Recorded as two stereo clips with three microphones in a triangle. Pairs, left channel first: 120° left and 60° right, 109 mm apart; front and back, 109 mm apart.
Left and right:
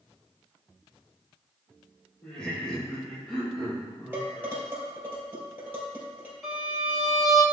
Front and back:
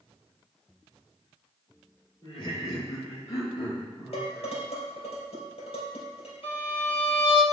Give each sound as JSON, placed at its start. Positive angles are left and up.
{"t": 2.2, "sound": "laughter", "azimuth_deg": 40, "distance_m": 2.5}
{"t": 4.1, "sound": "dishes clattering", "azimuth_deg": 10, "distance_m": 3.0}
{"t": 6.4, "sound": "a violin", "azimuth_deg": 25, "distance_m": 2.5}